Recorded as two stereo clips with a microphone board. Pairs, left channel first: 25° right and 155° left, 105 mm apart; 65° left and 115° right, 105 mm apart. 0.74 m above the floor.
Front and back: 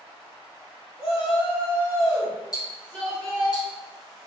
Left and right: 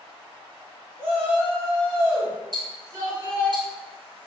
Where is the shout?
50° right, 1.8 m; by 3.5 s 110° right, 1.5 m.